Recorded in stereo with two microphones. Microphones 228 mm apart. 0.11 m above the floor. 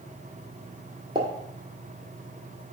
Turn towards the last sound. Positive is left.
turn(degrees=-20)  # may be behind; listen again after turning